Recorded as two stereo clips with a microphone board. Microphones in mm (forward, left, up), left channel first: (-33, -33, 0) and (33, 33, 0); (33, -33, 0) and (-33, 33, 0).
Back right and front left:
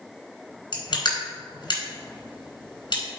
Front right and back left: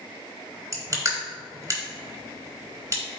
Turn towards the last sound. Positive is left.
turn(degrees=-170)